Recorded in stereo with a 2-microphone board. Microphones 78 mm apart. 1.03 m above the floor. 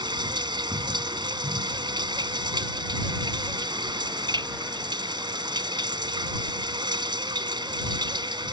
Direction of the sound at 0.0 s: 70° right (ahead or behind).